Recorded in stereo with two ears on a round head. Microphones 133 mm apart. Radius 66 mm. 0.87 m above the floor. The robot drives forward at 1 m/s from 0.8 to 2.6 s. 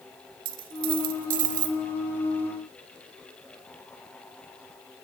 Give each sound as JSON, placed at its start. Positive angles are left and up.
{"t": 0.5, "sound": "a dropped coin", "side_deg": -70, "distance_m": 1.9}